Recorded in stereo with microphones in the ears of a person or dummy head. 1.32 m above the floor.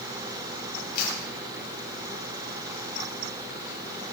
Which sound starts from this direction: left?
A camera shutter, at 0.9 s.